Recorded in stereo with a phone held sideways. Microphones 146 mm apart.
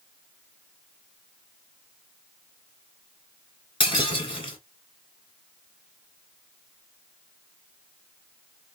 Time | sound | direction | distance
3.8 | breaking glass | 35° left (ahead or behind) | 1.2 m